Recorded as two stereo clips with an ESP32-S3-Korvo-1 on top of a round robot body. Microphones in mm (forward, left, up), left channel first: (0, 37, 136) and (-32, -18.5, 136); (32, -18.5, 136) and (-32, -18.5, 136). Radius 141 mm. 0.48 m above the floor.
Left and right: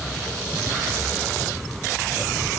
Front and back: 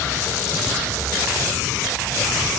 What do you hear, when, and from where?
Only background noise.